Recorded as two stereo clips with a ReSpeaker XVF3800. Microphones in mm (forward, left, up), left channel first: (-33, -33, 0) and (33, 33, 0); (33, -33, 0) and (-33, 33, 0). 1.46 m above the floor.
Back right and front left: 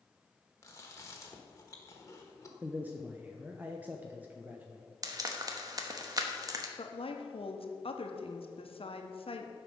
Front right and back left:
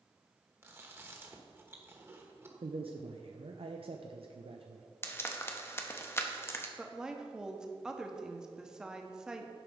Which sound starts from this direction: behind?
Chewing, at 0.6 s.